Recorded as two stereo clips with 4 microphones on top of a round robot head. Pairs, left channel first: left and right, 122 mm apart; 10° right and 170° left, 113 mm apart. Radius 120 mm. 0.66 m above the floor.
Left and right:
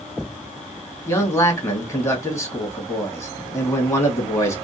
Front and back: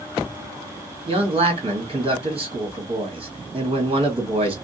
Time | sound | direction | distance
1.1 | a man speaking | 150° left | 1.8 m